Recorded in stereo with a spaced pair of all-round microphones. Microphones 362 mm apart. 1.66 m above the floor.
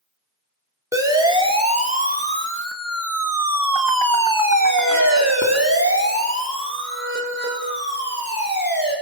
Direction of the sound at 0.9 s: 10° right (ahead or behind).